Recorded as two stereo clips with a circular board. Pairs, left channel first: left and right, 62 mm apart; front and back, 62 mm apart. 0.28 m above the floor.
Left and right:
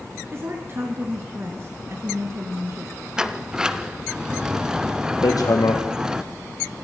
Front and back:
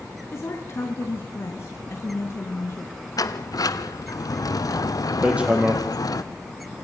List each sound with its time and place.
0.3 s a woman speaking: 45° right, 3.5 m
3.2 s a sliding door: 10° right, 1.4 m
5.2 s hammering: 110° left, 4.5 m